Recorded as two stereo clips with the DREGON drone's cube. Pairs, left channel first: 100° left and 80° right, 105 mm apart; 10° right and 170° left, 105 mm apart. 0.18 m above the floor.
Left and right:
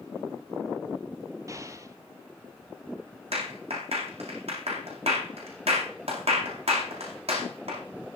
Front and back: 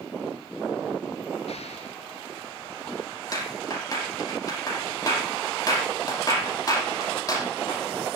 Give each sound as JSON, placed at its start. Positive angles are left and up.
{"t": 1.5, "sound": "an explosion", "azimuth_deg": -20, "distance_m": 1.4}
{"t": 3.3, "sound": "a clap", "azimuth_deg": -65, "distance_m": 7.0}